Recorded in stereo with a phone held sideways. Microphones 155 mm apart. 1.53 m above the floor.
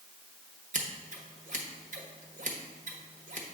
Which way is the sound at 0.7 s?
55° right (ahead or behind).